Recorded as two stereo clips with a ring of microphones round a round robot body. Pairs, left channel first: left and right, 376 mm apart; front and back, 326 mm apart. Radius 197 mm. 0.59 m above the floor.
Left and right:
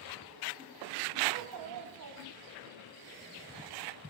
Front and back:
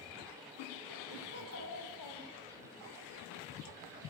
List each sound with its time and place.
1.3 s a child speaking: 65° right, 3 m; by 2.7 s 25° right, 2.5 m